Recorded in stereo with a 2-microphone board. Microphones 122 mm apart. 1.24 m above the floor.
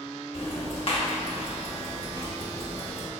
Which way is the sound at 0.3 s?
50° left (ahead or behind).